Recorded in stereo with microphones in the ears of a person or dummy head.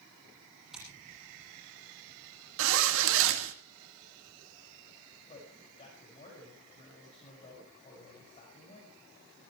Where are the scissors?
5° right (ahead or behind), 8 m.